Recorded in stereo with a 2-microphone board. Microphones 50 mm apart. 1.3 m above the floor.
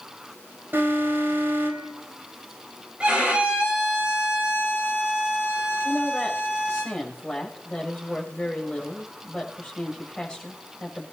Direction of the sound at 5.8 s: 20° left (ahead or behind).